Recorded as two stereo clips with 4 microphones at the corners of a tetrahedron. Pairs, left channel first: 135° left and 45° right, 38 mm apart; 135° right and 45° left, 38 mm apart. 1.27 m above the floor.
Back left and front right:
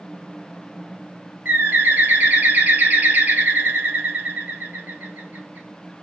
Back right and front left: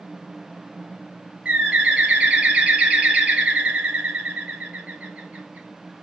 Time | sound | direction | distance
1.4 | a bird | 10° right | 0.9 m